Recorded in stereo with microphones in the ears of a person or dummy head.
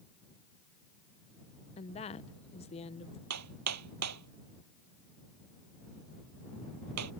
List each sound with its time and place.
1.8 s a woman speaking: 30° left (ahead or behind)
3.3 s hammering: 90° right